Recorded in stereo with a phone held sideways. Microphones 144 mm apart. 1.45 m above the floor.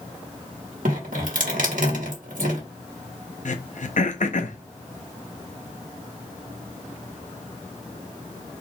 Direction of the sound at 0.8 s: 75° right (ahead or behind).